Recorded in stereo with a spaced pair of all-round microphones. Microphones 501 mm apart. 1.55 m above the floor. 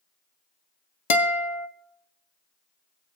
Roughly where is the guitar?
Left.